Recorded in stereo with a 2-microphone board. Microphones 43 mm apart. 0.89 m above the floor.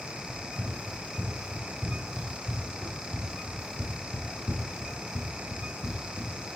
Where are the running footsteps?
40° right (ahead or behind), 3 m; by 6.4 s 55° left (ahead or behind), 1.6 m.